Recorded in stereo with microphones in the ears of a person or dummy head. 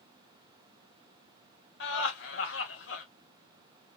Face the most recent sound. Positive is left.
turn(degrees=70)  # may be behind; listen again after turning